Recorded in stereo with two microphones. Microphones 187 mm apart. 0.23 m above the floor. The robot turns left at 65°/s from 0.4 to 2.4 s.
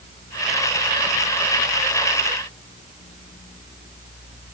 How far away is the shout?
I don't hear a shout.